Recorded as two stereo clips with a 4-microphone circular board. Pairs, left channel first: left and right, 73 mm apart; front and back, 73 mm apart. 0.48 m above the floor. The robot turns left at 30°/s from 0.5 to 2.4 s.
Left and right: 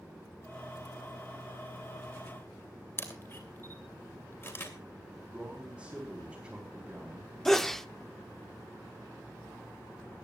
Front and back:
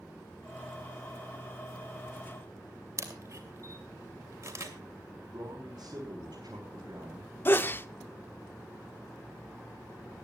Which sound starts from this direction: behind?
A man speaking, at 5.3 s.